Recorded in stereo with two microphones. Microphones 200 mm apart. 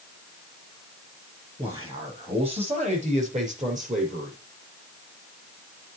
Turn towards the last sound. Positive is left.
turn(degrees=-45)  # may be behind; listen again after turning